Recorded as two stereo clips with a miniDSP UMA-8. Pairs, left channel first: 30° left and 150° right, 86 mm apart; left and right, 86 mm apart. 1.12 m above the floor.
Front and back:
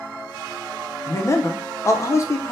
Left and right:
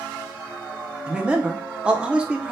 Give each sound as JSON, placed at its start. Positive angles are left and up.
{"t": 1.1, "sound": "a man speaking", "azimuth_deg": -15, "distance_m": 0.5}